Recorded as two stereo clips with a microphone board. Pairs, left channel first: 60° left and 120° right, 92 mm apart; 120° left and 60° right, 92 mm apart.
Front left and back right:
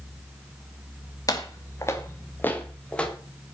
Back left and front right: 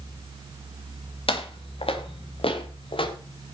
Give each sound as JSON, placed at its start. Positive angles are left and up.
{"t": 1.3, "sound": "footsteps", "azimuth_deg": 110, "distance_m": 3.0}